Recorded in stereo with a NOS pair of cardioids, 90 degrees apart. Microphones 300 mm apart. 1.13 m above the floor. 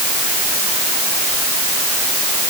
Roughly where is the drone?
I don't hear a drone.